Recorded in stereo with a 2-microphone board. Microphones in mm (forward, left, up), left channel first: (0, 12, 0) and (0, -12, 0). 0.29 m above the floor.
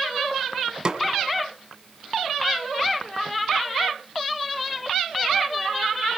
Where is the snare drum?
30° right (ahead or behind), 1.4 m.